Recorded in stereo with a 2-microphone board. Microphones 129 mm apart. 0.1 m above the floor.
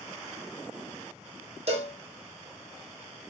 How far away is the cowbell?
About 1.0 m.